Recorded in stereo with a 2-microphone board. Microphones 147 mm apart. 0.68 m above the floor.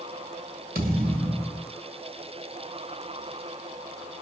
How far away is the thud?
About 1.4 m.